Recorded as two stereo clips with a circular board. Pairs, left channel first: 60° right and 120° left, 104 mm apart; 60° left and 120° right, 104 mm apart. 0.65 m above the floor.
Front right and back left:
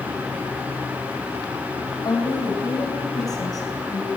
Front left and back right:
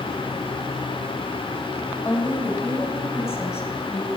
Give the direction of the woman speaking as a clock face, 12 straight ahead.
12 o'clock.